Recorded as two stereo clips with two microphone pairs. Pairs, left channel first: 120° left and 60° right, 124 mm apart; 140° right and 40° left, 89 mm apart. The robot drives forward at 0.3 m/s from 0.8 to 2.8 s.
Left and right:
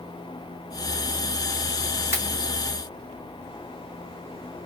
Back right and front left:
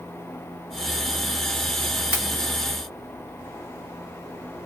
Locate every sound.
2.1 s a pop: 120° right, 1.5 m